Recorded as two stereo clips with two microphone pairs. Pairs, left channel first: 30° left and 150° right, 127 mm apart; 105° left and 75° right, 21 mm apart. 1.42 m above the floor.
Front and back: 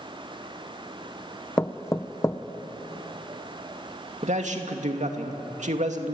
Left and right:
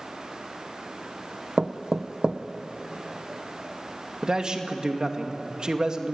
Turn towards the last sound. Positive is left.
turn(degrees=-125)